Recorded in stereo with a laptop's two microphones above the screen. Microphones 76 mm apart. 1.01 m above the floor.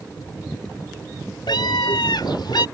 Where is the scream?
75° left (ahead or behind); by 2.7 s 70° left (ahead or behind).